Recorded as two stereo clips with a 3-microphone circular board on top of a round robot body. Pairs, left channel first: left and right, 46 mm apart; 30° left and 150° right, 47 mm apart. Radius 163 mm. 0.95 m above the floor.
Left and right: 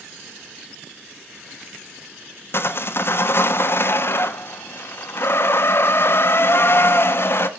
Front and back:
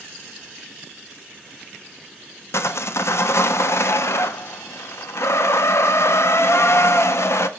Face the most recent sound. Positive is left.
turn(degrees=55)